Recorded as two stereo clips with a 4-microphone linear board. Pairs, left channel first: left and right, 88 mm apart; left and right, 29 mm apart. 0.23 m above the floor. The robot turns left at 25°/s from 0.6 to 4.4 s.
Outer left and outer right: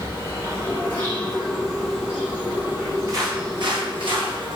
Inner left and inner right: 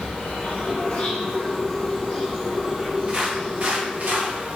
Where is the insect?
30° left, 4.5 m; by 4.5 s 65° right, 4.5 m.